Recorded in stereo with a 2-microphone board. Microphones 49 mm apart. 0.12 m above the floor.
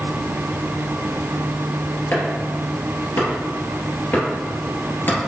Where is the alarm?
I don't hear an alarm.